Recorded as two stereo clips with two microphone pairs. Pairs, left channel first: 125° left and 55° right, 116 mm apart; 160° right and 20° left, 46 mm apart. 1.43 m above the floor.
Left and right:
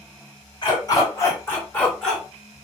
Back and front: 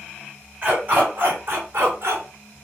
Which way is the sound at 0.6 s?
75° left.